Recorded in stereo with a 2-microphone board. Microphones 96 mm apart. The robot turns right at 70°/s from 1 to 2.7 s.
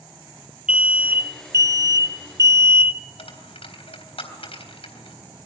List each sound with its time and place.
0.7 s an alarm: 160° right, 0.8 m; by 3.0 s 40° right, 0.8 m
3.2 s a dropped coin: 80° left, 3.5 m